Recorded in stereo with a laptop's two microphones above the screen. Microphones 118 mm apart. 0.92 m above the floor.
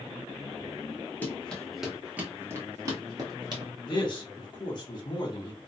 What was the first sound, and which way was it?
Running footsteps, 15° left (ahead or behind).